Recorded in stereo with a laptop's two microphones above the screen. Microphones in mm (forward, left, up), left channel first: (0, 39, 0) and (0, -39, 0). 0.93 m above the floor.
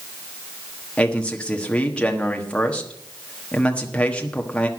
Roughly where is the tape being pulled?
No tape being pulled in this recording.